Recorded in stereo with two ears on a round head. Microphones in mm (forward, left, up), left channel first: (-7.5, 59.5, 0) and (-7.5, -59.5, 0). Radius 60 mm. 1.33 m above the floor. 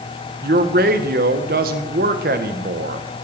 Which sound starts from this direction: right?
A man speaking, at 0.4 s.